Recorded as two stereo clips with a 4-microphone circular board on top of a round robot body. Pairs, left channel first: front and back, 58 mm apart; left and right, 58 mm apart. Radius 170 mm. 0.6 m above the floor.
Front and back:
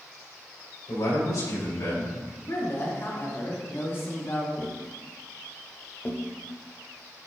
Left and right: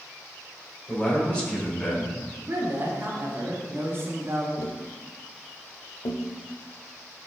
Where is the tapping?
70° left, 0.9 m.